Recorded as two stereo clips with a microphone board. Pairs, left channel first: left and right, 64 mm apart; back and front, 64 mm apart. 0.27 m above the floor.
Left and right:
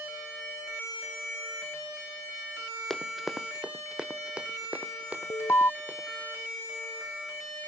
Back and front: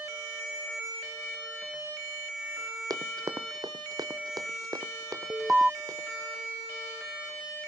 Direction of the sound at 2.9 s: 5° left.